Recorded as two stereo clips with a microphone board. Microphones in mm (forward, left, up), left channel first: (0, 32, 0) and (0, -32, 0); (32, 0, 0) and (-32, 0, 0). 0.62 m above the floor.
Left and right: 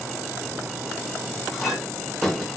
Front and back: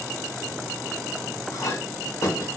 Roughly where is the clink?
Ahead.